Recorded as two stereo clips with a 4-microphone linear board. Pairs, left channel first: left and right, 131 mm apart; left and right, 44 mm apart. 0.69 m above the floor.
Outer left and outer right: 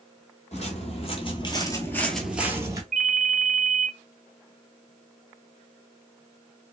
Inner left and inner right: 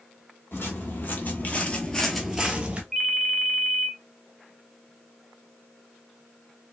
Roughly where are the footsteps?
Left.